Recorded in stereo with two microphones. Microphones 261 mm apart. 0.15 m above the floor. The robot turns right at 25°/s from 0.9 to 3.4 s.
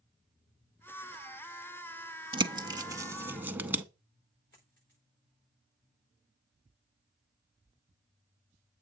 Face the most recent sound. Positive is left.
turn(degrees=45)  # may be behind; listen again after turning